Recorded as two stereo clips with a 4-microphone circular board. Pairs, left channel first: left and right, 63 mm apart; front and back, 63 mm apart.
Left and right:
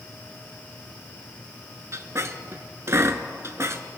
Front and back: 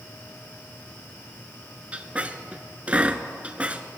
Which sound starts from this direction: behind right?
A squeak, at 1.9 s.